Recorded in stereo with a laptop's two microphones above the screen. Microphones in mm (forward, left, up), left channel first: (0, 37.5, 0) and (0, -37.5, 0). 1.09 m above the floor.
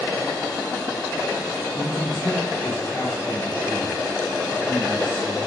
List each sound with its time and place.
1.7 s a man speaking: 70° left (ahead or behind), 2.5 m